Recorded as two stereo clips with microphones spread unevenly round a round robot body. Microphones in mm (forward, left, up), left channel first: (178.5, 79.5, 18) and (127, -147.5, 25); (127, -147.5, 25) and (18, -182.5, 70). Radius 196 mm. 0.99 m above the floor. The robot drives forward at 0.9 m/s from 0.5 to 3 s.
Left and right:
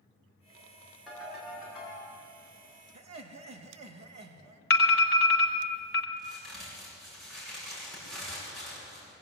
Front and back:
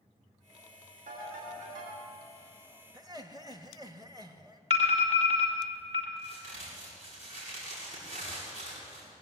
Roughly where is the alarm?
Behind left.